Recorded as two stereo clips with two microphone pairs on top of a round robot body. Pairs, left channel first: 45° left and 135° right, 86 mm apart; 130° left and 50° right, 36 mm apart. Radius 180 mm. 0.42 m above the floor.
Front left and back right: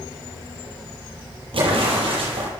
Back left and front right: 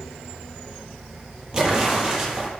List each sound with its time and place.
1.5 s an explosion: 115° right, 7.5 m